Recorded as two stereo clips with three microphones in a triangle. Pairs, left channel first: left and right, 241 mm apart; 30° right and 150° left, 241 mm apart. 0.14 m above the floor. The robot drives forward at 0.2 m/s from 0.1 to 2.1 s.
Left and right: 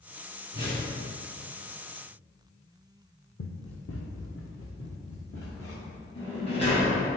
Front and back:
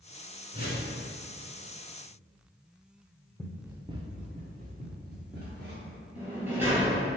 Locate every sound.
0.5 s a whoosh: 125° left, 1.6 m; by 0.9 s 130° left, 1.7 m
3.4 s running footsteps: 55° left, 0.6 m; by 6.0 s 110° left, 2 m
6.2 s a sliding door: 70° left, 1.9 m